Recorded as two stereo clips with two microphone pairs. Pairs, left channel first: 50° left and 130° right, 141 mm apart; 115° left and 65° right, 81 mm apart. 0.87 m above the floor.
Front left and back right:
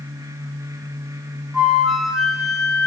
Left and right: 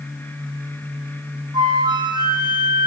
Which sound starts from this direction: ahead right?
A flute, at 1.5 s.